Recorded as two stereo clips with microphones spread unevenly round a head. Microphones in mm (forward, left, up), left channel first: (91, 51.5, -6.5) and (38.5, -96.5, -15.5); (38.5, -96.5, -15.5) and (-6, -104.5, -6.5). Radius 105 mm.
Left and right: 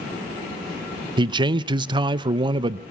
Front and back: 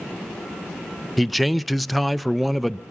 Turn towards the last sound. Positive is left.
turn(degrees=-65)